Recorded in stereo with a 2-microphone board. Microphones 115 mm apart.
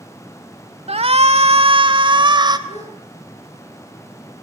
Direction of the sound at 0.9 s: 60° right (ahead or behind).